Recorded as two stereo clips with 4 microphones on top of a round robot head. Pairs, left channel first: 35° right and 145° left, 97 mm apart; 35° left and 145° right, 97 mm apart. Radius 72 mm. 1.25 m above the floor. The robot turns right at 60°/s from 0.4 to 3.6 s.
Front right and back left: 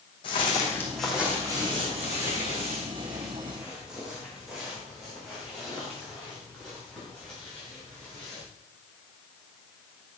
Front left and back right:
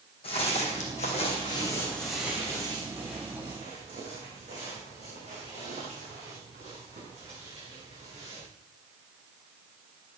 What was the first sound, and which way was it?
Footsteps, 5° left.